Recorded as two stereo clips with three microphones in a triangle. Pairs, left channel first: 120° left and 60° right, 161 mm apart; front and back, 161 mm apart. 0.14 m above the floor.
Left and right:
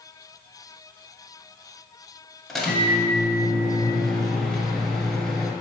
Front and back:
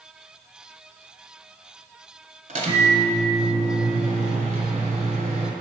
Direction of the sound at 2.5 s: 150° right.